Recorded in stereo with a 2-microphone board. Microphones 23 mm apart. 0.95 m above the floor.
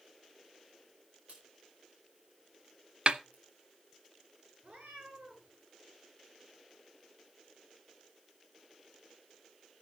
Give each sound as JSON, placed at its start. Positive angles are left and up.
{"t": 1.3, "sound": "a crack", "side_deg": -75, "distance_m": 4.5}
{"t": 3.1, "sound": "a snare drum", "side_deg": -45, "distance_m": 0.6}
{"t": 4.6, "sound": "a cat meowing", "side_deg": -65, "distance_m": 7.0}